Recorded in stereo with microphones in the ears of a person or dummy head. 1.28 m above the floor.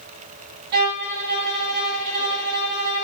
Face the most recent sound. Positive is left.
turn(degrees=-50)  # may be behind; listen again after turning